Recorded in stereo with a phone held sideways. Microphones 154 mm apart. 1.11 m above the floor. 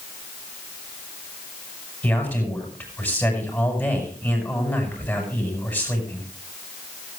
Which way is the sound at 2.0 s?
10° left (ahead or behind).